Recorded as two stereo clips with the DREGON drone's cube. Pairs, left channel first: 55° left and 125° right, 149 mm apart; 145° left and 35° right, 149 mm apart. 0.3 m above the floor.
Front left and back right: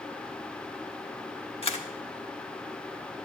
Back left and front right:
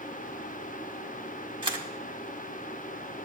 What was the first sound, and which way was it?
A camera shutter, 15° left.